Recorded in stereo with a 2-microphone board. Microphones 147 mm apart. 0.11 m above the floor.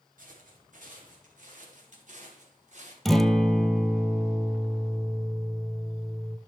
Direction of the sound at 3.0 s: Centre (ahead or behind).